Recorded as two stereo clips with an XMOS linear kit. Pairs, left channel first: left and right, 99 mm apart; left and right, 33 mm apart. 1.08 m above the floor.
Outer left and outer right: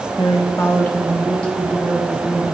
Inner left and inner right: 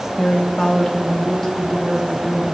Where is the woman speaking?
45° left (ahead or behind), 0.8 m; by 2.5 s 10° left (ahead or behind), 4 m.